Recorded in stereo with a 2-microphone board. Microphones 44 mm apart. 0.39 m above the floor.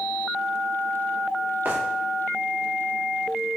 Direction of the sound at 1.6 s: 55° right (ahead or behind).